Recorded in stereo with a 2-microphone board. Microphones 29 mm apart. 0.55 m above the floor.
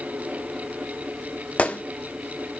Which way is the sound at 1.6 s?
50° left (ahead or behind).